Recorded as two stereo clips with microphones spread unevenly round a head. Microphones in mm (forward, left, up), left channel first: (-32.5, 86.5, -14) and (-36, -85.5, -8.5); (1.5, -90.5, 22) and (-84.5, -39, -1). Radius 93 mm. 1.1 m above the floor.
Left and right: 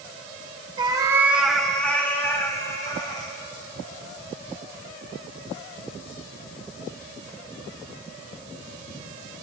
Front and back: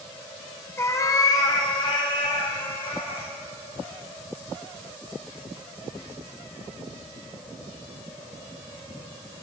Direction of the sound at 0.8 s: 45° right.